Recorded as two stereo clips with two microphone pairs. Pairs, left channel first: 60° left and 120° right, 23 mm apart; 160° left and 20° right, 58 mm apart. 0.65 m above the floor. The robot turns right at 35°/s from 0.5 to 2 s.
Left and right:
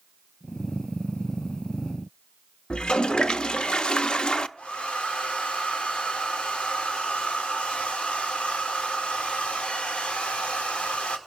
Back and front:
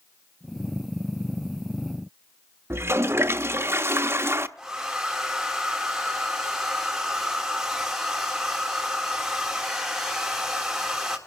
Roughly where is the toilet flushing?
Ahead.